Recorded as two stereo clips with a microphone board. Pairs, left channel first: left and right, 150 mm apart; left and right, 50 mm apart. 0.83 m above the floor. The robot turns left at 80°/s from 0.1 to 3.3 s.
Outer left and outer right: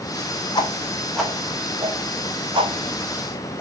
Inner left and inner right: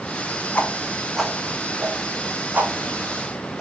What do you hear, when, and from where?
0.6 s a whoosh: 30° left (ahead or behind), 0.8 m; by 3.6 s 10° right (ahead or behind), 0.8 m